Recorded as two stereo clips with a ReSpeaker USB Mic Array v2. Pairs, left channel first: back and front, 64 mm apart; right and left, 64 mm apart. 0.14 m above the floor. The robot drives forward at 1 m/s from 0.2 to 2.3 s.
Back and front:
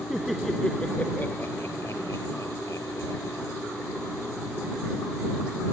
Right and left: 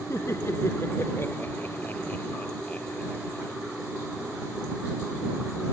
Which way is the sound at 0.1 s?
85° right.